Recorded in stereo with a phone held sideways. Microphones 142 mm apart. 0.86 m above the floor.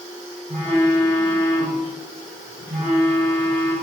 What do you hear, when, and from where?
0.5 s a phone buzzing: 55° right (ahead or behind), 2.5 m